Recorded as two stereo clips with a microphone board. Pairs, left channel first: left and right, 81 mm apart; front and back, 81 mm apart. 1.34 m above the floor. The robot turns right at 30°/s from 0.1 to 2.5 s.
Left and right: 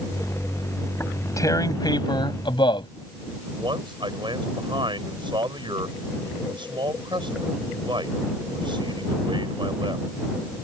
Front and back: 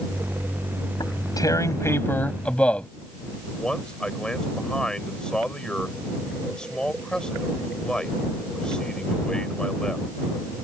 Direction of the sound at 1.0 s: 30° left.